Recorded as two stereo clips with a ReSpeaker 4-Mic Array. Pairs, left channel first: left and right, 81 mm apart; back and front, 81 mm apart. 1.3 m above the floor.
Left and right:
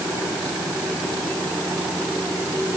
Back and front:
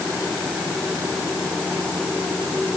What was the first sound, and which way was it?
Only background noise.